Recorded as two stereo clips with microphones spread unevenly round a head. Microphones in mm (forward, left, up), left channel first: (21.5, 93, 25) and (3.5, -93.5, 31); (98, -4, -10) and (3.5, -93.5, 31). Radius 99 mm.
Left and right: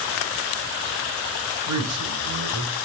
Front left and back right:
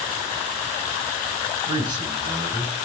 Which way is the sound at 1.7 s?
80° right.